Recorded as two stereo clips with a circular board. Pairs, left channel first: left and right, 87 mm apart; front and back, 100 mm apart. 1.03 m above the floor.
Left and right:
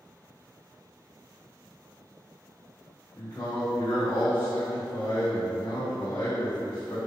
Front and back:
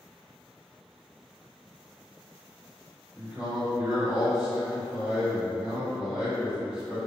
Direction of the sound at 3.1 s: 110° left.